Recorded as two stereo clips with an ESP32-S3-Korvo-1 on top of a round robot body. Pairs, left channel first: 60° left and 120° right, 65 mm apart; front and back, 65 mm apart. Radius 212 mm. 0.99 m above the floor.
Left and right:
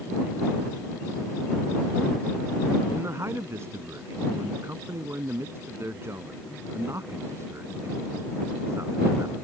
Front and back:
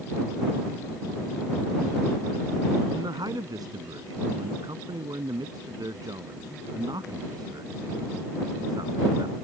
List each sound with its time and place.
2.9 s a man speaking: 170° right